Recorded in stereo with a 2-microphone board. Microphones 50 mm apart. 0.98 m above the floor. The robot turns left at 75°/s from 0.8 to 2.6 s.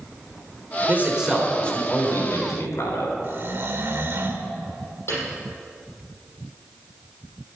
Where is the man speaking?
140° right, 3.5 m; by 3.1 s 90° left, 3.5 m.